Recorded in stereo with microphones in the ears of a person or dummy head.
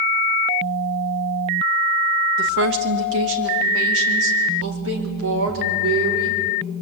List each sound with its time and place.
2.4 s a woman speaking: 60° right (ahead or behind), 1.7 m; by 6.4 s 80° right, 4.5 m